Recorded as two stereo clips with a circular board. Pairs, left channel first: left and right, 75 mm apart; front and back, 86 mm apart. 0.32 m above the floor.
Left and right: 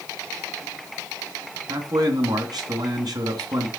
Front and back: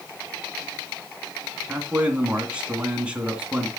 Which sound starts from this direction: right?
A man speaking, at 1.7 s.